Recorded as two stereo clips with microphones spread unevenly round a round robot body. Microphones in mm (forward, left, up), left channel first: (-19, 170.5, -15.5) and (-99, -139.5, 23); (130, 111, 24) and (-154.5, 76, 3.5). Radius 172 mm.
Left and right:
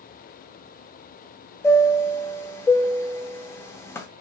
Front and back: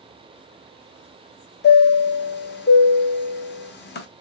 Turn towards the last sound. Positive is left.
turn(degrees=10)